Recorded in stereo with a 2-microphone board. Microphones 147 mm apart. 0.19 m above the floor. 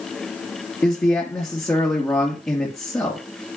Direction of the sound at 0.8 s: 20° left (ahead or behind).